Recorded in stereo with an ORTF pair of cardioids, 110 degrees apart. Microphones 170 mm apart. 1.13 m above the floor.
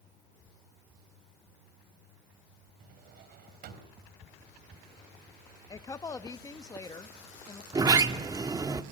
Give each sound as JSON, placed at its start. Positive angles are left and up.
{"t": 2.8, "sound": "a drawer", "azimuth_deg": -65, "distance_m": 3.5}
{"t": 5.7, "sound": "a woman speaking", "azimuth_deg": 20, "distance_m": 1.2}
{"t": 7.7, "sound": "a sliding door", "azimuth_deg": -25, "distance_m": 1.3}